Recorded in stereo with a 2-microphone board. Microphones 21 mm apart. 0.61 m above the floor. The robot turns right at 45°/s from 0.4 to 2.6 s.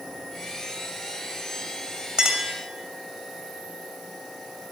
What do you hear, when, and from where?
2.2 s a clink: 45° right (ahead or behind), 2.5 m; by 2.5 s 30° right (ahead or behind), 2.5 m